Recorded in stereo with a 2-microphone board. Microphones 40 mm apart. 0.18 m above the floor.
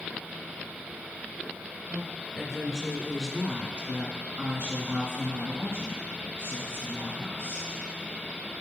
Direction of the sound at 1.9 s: 20° left (ahead or behind).